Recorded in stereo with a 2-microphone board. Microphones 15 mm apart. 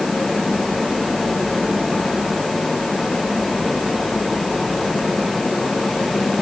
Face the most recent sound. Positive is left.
No sound to turn to.